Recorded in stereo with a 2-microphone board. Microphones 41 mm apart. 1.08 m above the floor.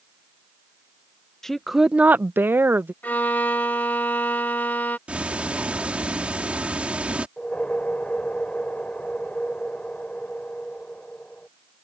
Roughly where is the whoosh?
Left.